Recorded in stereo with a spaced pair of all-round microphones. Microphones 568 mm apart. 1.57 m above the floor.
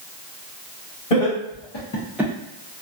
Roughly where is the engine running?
I don't hear an engine running.